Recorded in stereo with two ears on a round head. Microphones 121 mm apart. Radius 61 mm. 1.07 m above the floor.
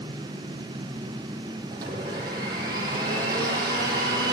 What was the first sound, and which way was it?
A blender, 30° right (ahead or behind).